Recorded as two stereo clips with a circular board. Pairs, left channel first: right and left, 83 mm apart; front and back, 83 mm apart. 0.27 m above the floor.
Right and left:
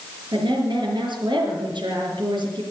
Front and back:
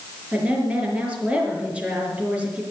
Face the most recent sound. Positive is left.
turn(degrees=105)